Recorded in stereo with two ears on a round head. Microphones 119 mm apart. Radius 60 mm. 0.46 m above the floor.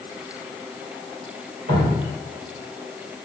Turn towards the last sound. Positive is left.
turn(degrees=-75)  # may be behind; listen again after turning